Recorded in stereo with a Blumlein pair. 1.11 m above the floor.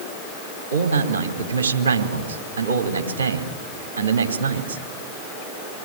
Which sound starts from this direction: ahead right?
A man speaking, at 0.7 s.